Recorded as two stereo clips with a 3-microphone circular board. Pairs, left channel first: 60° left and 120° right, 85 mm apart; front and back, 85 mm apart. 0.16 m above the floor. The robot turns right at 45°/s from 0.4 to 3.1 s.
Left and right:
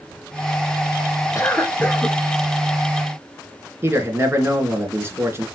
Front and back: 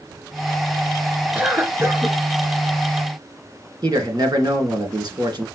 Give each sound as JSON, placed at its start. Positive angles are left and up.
{"t": 1.4, "sound": "a cough", "azimuth_deg": 105, "distance_m": 2.0}
{"t": 3.8, "sound": "a man speaking", "azimuth_deg": -175, "distance_m": 2.5}